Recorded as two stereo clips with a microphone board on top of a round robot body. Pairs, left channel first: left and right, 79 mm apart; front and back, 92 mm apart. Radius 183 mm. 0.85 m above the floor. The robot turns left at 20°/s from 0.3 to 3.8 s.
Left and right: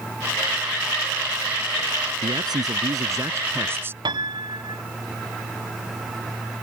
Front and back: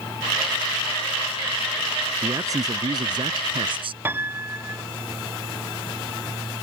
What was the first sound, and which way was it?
A man speaking, 120° right.